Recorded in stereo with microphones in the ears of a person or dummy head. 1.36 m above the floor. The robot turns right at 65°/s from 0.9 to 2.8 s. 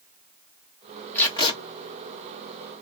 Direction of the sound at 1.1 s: 15° left (ahead or behind).